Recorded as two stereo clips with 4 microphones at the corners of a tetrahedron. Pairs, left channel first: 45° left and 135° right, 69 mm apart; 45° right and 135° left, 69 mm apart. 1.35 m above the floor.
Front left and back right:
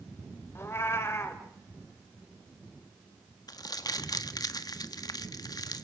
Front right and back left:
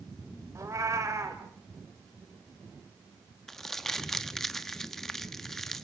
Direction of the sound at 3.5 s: 40° left.